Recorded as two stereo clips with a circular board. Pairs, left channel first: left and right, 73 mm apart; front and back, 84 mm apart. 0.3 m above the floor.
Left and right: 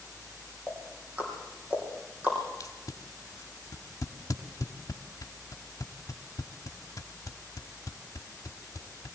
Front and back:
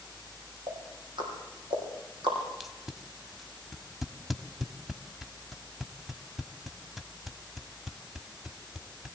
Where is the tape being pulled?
95° left, 1.2 m.